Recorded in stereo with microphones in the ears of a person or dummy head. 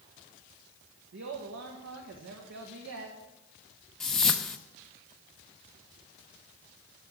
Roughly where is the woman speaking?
Right.